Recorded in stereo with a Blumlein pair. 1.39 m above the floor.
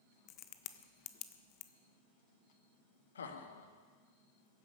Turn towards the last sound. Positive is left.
turn(degrees=65)